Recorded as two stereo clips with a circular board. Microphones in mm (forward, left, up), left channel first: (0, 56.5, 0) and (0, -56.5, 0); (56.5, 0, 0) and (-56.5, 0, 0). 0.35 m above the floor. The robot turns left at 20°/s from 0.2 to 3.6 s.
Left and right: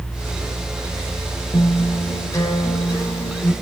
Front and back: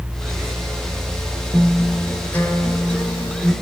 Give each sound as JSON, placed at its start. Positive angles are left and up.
{"t": 1.5, "sound": "a guitar", "azimuth_deg": 75, "distance_m": 1.4}